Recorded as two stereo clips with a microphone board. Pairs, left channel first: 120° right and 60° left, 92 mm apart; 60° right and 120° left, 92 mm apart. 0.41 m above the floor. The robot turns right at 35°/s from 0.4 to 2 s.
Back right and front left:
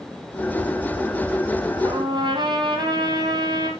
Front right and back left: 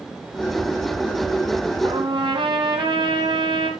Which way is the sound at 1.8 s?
90° left.